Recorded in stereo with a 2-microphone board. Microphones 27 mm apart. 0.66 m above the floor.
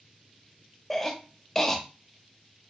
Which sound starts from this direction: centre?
A cough, at 0.9 s.